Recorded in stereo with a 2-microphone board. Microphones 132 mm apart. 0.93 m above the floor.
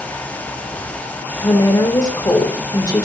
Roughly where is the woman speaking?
Left.